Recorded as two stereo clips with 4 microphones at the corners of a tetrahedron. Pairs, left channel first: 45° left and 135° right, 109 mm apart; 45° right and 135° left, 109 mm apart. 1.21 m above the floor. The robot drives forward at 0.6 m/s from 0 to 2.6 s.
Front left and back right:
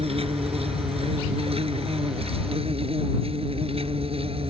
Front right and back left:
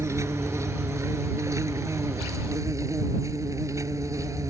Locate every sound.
0.0 s an insect: 160° right; by 4.5 s 165° right